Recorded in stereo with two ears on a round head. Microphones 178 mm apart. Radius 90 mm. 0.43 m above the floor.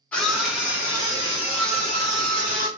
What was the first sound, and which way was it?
A scream, 5° left (ahead or behind).